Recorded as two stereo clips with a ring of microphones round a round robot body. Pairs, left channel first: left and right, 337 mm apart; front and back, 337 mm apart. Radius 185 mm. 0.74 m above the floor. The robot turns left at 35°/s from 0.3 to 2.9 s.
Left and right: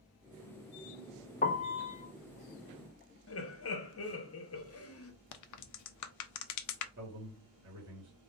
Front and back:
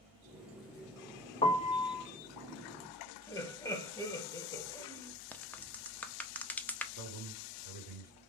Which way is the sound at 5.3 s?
85° left.